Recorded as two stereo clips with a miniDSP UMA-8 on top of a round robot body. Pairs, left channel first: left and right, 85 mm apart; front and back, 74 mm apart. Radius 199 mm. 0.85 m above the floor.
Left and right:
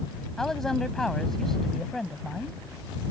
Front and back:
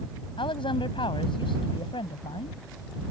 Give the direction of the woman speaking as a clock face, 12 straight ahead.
12 o'clock.